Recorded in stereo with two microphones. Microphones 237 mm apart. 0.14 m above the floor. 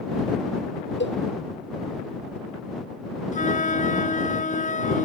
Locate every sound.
1.0 s a cowbell: 55° left (ahead or behind)
3.3 s a flute: 35° left (ahead or behind)